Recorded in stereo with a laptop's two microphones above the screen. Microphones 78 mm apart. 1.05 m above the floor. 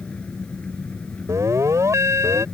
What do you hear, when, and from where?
0.0 s an engine running: 15° left (ahead or behind)
1.3 s an alarm: 40° right (ahead or behind)